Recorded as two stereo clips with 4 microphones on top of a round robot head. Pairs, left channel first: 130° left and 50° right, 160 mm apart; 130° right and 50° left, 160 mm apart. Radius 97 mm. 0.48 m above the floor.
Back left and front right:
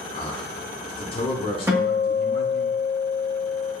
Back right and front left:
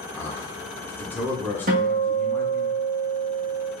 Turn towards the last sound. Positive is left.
turn(degrees=25)